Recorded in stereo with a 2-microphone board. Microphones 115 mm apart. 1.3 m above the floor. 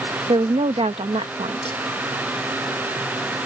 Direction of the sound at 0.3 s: 65° right (ahead or behind).